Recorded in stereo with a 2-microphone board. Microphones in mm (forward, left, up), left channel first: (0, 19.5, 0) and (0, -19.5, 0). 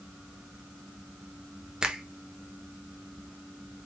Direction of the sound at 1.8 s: 25° right (ahead or behind).